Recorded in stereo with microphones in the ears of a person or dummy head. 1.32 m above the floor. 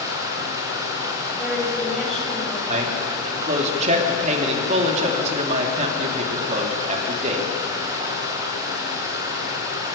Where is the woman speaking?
Centre (ahead or behind), 7 m.